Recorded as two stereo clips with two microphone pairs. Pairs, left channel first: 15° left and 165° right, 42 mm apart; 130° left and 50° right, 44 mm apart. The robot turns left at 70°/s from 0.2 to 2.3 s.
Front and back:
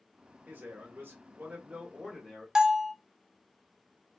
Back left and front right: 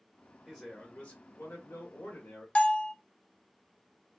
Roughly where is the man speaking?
Behind right.